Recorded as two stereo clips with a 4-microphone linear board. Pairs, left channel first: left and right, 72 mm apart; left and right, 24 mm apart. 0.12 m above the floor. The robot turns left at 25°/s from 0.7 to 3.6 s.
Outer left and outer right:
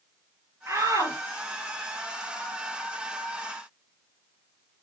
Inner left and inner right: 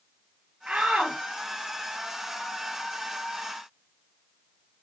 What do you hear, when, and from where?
0.7 s a shout: 40° right (ahead or behind), 2.5 m; by 1.2 s 50° right (ahead or behind), 2.5 m